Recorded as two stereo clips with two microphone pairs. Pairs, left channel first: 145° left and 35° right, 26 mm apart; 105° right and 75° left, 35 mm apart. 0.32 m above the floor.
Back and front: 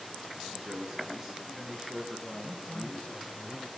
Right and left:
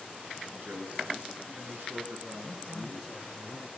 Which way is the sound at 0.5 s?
40° left.